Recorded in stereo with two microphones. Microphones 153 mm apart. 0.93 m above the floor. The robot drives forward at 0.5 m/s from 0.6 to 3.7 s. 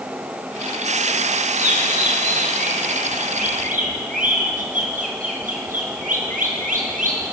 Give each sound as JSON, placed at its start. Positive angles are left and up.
{"t": 1.6, "sound": "a bird", "side_deg": -50, "distance_m": 7.0}